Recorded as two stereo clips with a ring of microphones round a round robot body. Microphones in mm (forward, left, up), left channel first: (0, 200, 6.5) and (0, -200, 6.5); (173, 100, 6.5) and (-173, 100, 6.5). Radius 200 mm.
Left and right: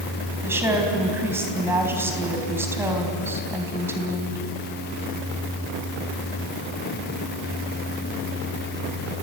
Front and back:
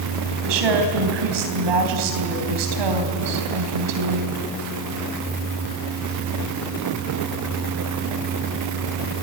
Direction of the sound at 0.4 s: 175° right.